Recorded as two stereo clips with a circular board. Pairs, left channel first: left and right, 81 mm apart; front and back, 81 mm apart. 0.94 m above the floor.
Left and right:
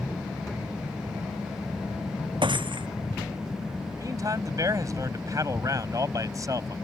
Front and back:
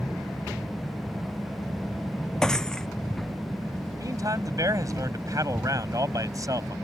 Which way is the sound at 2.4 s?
85° right.